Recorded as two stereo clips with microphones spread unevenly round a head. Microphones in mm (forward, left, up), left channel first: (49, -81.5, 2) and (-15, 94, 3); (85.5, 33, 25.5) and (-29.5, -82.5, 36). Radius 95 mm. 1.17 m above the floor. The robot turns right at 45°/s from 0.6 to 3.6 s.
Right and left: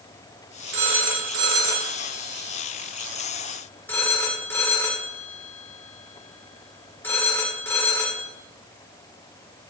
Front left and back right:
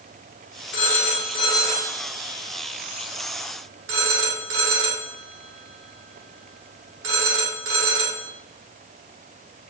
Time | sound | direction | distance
0.7 | a phone ringing | 80° left | 2 m